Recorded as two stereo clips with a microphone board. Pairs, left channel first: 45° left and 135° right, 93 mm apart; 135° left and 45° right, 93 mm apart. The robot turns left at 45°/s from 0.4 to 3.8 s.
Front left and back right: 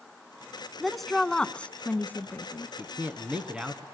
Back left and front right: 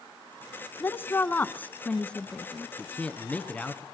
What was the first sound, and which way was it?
A woman speaking, 135° left.